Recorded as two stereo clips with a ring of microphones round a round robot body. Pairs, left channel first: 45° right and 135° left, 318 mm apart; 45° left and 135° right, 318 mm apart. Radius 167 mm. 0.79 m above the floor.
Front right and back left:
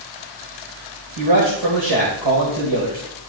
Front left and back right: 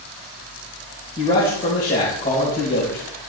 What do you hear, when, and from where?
1.2 s a man speaking: 110° left, 3.5 m